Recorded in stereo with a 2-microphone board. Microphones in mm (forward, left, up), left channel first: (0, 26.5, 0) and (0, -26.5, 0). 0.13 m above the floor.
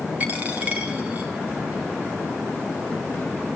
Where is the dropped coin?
35° right (ahead or behind), 2.5 m.